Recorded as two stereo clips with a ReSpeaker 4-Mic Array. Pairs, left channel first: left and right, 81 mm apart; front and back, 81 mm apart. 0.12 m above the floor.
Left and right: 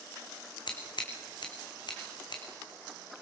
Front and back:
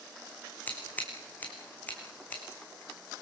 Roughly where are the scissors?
Left.